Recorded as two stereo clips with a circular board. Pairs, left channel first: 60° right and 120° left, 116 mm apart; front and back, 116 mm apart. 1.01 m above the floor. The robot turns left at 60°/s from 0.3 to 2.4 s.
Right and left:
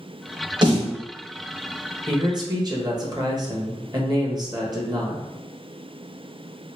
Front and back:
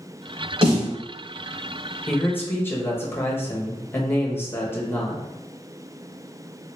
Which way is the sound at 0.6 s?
160° left.